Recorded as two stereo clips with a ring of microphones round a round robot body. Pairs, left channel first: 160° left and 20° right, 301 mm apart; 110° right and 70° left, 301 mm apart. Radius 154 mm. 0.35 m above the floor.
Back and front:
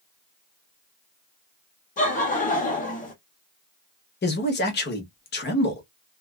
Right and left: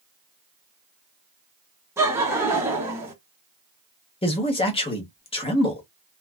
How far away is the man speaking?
About 1.0 m.